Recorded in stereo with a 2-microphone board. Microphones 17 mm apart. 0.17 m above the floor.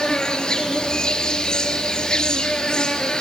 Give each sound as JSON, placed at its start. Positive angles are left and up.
{"t": 0.0, "sound": "an insect", "side_deg": 45, "distance_m": 1.7}